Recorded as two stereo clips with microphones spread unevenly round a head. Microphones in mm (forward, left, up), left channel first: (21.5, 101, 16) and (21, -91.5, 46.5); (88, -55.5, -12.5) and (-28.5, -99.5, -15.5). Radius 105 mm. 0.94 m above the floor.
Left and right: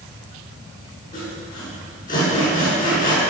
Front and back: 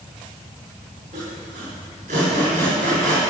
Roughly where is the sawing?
Behind left.